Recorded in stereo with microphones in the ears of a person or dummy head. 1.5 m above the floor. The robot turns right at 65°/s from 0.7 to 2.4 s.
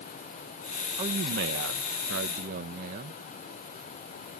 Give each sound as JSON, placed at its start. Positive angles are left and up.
{"t": 1.0, "sound": "a man speaking", "azimuth_deg": -145}